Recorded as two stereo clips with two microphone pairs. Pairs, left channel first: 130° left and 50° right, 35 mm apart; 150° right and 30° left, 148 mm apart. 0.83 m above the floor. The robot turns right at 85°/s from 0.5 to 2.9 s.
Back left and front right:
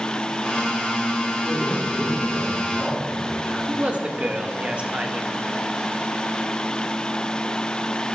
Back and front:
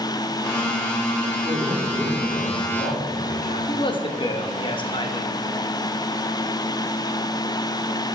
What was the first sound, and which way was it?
A man speaking, 80° left.